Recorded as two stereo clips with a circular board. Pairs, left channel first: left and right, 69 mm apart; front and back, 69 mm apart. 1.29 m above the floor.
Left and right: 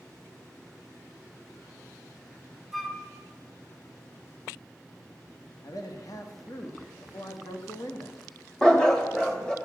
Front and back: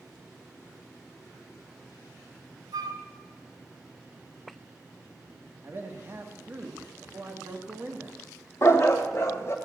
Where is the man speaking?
125° left, 1.5 m.